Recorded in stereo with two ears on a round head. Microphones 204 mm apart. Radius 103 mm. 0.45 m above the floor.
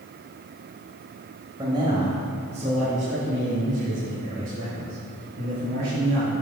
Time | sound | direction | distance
1.6 | a man speaking | 20° right (ahead or behind) | 2.0 m